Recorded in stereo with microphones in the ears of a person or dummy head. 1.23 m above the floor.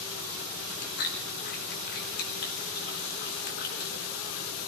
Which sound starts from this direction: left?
Chewing, at 0.6 s.